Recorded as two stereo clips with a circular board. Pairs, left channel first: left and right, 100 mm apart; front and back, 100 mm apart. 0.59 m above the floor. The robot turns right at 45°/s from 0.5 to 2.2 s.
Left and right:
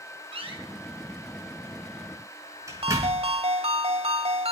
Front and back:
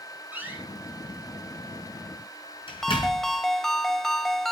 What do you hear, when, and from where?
0.3 s a door slam: 110° right, 5.5 m; by 3.3 s 30° right, 5.5 m
2.8 s a ringtone: 85° right, 1.1 m